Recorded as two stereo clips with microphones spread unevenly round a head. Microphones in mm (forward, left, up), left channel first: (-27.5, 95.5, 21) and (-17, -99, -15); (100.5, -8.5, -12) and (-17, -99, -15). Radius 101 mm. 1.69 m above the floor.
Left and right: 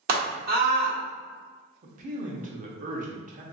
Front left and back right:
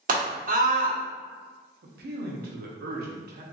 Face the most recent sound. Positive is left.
turn(degrees=-140)